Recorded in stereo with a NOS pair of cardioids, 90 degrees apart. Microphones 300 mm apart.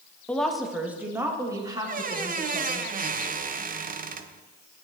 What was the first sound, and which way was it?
A woman speaking, 5° left.